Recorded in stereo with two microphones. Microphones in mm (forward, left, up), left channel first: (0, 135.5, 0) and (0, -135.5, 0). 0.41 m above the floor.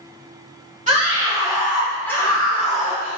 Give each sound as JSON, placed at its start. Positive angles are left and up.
{"t": 0.9, "sound": "a scream", "side_deg": -25, "distance_m": 1.2}